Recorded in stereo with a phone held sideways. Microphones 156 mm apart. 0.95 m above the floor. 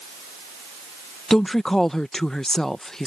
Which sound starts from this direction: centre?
A woman speaking, at 1.3 s.